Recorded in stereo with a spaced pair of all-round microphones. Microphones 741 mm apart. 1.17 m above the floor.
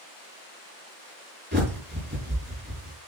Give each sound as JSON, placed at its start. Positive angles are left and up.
{"t": 1.5, "sound": "a bird", "side_deg": -15, "distance_m": 4.0}